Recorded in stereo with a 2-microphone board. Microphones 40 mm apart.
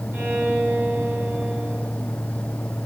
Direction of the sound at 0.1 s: 55° right (ahead or behind).